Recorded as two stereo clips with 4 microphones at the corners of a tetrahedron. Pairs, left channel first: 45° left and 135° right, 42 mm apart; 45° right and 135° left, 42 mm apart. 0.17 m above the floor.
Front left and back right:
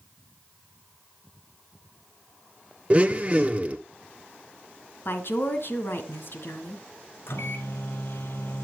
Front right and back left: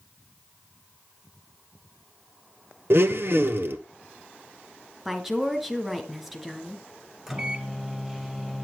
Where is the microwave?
55° left, 2.5 m.